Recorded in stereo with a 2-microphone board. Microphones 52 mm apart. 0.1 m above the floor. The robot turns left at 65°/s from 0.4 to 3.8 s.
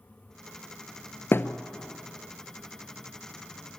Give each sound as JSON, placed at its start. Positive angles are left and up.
{"t": 1.3, "sound": "a thud", "side_deg": 50, "distance_m": 0.8}